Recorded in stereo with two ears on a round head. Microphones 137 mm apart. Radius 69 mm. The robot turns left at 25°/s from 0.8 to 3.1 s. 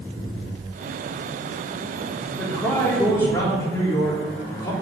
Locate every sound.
2.4 s a man speaking: 5° left (ahead or behind), 3 m; by 4.7 s 20° left (ahead or behind), 3 m